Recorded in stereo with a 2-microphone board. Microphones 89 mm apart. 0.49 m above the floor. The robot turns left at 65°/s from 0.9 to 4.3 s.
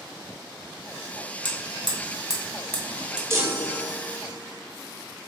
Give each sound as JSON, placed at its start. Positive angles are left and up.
{"t": 1.4, "sound": "hammering", "side_deg": 70, "distance_m": 0.9}
{"t": 3.3, "sound": "a chime", "azimuth_deg": -135, "distance_m": 0.8}